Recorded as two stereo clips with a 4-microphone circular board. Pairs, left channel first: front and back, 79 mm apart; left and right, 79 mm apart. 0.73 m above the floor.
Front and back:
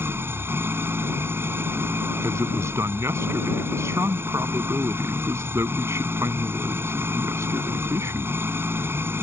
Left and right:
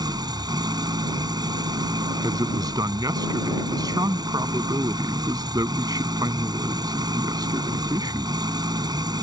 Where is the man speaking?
125° right.